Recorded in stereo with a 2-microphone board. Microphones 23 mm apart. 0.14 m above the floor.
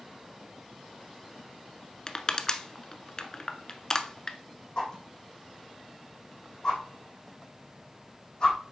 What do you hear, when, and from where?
2.1 s crushing: 30° left (ahead or behind), 0.9 m
4.8 s a whoosh: 35° left (ahead or behind), 5.5 m